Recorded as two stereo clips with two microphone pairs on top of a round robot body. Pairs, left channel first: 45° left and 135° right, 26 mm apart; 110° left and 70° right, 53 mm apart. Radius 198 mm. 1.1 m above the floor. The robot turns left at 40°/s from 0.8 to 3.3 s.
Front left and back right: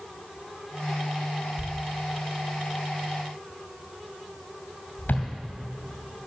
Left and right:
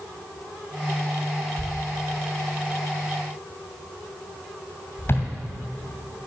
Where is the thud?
130° left, 2.5 m; by 5.3 s 65° left, 2.5 m.